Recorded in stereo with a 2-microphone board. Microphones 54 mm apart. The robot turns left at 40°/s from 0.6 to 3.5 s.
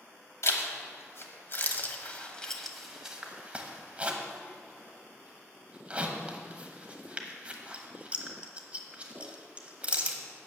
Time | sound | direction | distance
0.4 | a zipper | 65° left (ahead or behind) | 1.1 m